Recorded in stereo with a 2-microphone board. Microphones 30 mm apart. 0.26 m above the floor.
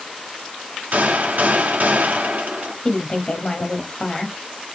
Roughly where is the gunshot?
Right.